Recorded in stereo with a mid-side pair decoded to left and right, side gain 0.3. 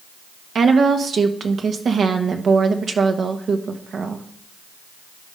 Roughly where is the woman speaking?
Right.